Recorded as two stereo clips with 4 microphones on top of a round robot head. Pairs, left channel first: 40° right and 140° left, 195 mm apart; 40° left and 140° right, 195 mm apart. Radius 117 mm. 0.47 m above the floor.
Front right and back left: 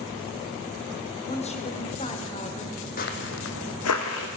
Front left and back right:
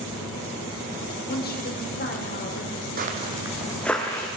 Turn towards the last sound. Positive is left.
turn(degrees=-35)